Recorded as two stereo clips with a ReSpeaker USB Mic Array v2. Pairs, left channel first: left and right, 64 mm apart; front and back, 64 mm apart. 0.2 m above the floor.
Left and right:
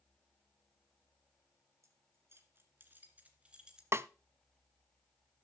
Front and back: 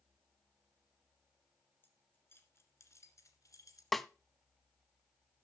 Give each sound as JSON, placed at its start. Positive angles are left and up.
{"t": 1.8, "sound": "keys jangling", "azimuth_deg": -55, "distance_m": 2.0}
{"t": 3.9, "sound": "a snare drum", "azimuth_deg": -85, "distance_m": 0.5}